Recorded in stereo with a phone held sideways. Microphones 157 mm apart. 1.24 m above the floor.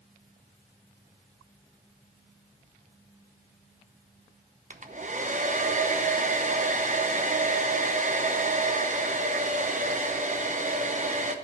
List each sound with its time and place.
4.7 s a hair dryer: 50° right (ahead or behind), 0.8 m